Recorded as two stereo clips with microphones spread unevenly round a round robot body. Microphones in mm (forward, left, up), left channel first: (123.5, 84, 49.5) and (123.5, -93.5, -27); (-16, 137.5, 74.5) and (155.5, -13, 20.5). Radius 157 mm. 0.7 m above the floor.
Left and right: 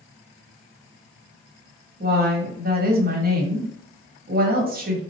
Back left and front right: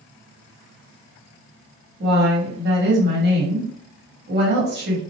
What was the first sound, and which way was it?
A woman speaking, 80° right.